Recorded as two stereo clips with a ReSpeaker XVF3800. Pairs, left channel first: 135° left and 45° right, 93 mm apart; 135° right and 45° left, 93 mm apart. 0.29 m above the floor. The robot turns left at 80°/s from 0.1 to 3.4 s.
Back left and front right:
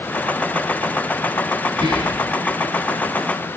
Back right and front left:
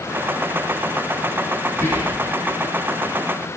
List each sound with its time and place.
1.7 s whispering: 65° right, 4.5 m; by 2.3 s 110° right, 4.5 m